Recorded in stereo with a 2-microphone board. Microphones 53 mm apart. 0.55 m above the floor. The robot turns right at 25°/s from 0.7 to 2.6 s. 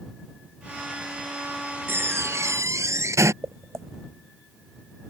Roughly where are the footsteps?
Right.